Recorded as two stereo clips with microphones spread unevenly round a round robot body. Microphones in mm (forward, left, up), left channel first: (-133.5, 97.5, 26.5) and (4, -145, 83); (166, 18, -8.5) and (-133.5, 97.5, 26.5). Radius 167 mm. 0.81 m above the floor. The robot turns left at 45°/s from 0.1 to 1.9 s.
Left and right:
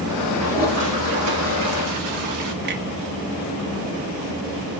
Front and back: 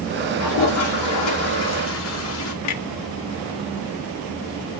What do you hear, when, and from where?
0.4 s a toilet flushing: 10° left, 2.5 m; by 2.5 s 55° right, 2.5 m
2.6 s a clunk: 5° right, 0.8 m